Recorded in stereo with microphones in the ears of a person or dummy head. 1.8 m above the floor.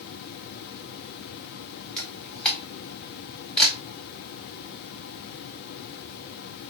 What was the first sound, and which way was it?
A camera shutter, 5° left (ahead or behind).